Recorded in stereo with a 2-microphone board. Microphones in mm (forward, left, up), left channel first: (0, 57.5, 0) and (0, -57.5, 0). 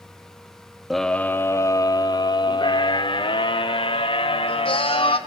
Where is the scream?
Centre (ahead or behind), 0.8 m; by 5.2 s 50° left (ahead or behind), 3.5 m.